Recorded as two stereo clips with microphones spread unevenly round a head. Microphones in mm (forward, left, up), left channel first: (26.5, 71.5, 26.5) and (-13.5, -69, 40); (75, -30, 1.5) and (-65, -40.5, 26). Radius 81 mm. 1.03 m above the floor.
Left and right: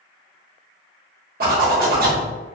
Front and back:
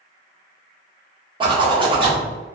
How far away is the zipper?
About 1.4 m.